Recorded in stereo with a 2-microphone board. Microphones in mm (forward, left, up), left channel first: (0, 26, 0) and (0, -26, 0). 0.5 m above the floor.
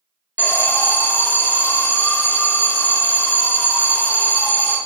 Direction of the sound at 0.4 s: 40° left (ahead or behind).